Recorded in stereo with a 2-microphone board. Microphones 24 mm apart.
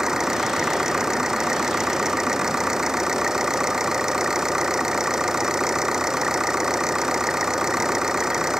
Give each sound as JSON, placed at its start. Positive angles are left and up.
{"t": 0.0, "sound": "an engine running", "side_deg": -20}